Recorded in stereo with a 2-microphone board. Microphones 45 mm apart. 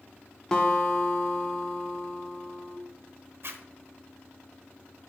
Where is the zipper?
55° right (ahead or behind), 1.0 m.